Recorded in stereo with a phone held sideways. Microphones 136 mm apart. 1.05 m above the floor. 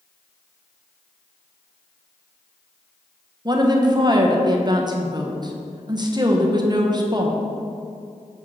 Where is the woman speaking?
30° right (ahead or behind), 0.8 m.